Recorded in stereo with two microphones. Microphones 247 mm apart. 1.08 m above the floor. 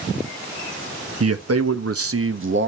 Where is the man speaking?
75° right (ahead or behind), 1.2 m; by 2.7 s 50° right (ahead or behind), 1.3 m.